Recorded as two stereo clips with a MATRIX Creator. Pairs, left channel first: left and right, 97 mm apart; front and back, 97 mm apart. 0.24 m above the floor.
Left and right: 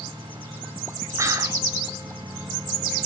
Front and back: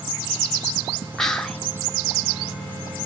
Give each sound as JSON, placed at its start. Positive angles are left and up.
{"t": 1.2, "sound": "whispering", "azimuth_deg": -85, "distance_m": 1.6}